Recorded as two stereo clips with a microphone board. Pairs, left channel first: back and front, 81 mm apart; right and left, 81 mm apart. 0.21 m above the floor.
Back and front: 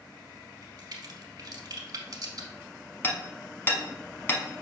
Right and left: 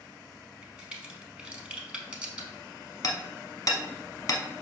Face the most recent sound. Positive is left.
turn(degrees=-120)